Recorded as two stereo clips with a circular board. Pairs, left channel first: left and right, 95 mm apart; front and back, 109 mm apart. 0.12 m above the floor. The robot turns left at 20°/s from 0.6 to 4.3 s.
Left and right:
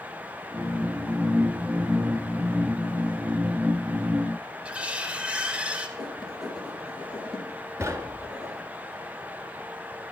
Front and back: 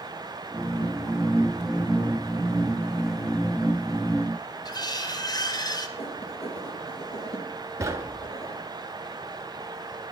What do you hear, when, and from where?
4.7 s cutlery clinking: 20° right, 1.0 m
6.0 s writing: straight ahead, 4 m
7.8 s knocking: 135° right, 1.0 m